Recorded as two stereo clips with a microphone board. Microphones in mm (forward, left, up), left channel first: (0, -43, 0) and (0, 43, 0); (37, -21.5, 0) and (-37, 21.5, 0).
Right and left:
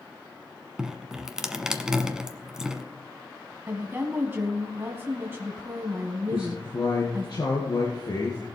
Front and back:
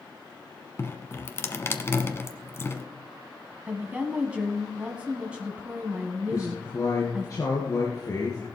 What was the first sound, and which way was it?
Dripping, 10° left.